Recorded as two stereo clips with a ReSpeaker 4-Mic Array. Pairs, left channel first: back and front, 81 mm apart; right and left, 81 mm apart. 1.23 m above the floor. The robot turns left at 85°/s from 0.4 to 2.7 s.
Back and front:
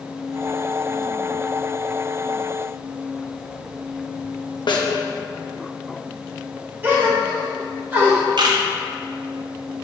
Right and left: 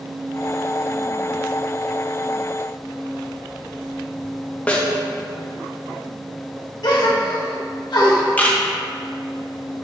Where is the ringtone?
No ringtone in this recording.